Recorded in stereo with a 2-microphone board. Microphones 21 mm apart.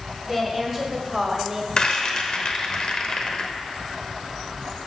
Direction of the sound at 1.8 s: 35° left (ahead or behind).